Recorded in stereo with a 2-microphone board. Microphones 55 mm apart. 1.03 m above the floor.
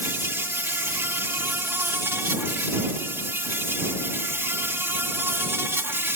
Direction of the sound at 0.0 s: 45° right (ahead or behind).